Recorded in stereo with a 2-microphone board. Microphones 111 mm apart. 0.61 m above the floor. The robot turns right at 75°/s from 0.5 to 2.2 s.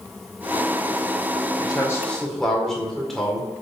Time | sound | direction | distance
1.6 | a man speaking | 130° left | 2.5 m